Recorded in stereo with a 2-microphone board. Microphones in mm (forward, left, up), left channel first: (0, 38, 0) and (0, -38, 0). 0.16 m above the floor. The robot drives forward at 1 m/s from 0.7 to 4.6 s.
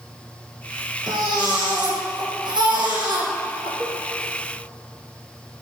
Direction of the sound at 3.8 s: 45° right (ahead or behind).